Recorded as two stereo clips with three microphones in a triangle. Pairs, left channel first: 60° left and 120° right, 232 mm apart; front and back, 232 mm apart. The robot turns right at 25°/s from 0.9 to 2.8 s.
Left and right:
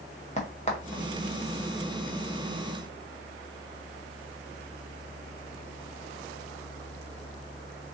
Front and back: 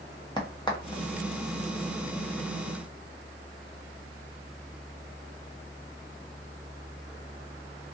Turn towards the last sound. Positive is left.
turn(degrees=100)